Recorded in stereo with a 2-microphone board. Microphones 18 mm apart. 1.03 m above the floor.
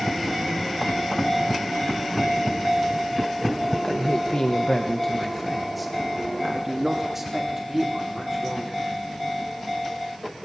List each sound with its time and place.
3.8 s a man speaking: 55° left (ahead or behind), 1.2 m; by 8.9 s 25° right (ahead or behind), 4 m